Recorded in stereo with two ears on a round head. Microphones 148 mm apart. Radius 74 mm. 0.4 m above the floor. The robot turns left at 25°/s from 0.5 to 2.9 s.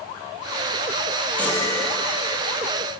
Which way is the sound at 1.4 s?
10° left (ahead or behind).